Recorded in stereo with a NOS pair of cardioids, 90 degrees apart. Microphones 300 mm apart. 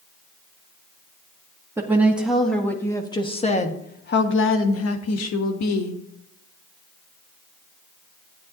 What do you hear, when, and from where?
1.8 s a woman speaking: 10° right, 1.8 m; by 6.0 s 75° left, 1.7 m